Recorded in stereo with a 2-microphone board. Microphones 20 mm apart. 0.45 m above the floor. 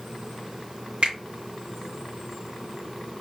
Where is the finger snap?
75° right (ahead or behind), 3 m.